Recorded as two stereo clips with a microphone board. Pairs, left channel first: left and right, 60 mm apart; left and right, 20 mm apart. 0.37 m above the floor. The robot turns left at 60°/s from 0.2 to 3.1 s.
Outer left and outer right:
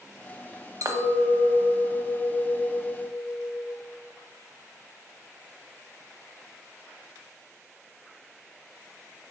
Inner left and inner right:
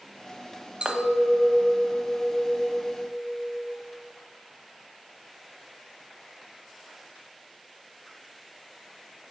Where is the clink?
80° right, 1.0 m; by 3.8 s 145° left, 1.0 m.